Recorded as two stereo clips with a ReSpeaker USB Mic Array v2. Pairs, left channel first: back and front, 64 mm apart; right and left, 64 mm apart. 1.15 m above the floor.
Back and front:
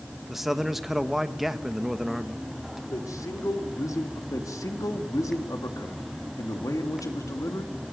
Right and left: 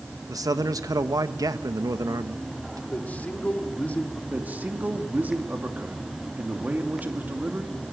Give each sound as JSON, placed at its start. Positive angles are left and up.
{"t": 0.3, "sound": "a man speaking", "azimuth_deg": 85, "distance_m": 1.3}
{"t": 2.9, "sound": "a man speaking", "azimuth_deg": -155, "distance_m": 3.0}
{"t": 4.3, "sound": "a man speaking", "azimuth_deg": 155, "distance_m": 2.5}